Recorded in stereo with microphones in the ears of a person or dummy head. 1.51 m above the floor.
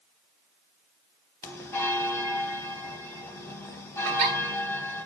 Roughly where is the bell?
Centre.